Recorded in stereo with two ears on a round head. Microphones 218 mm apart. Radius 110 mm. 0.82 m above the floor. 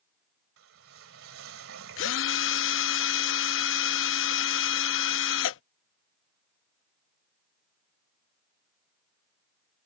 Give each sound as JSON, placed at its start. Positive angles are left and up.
{"t": 0.6, "sound": "a whoosh", "side_deg": -55}
{"t": 2.0, "sound": "a drill", "side_deg": 55}